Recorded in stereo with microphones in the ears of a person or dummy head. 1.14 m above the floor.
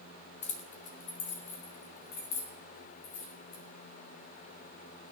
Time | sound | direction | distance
0.4 | keys jangling | 30° left (ahead or behind) | 0.9 m